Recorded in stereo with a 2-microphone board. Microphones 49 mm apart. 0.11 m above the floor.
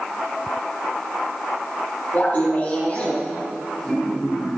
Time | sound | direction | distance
2.1 | laughter | 35° left (ahead or behind) | 4 m